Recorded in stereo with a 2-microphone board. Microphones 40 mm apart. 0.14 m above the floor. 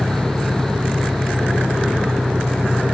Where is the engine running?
20° right (ahead or behind).